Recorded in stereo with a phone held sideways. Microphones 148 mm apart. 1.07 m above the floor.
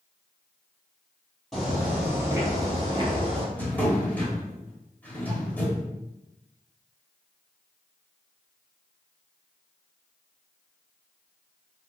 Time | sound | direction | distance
1.5 | footsteps | centre (ahead or behind) | 1.6 m
3.5 | a drawer | 10° left (ahead or behind) | 0.9 m